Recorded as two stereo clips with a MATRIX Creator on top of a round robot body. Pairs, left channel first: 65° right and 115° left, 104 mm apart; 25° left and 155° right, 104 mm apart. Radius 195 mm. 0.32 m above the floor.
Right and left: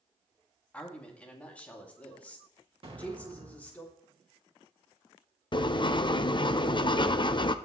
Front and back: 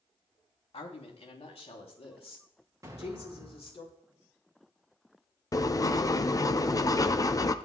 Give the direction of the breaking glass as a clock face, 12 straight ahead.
No breaking glass in this recording.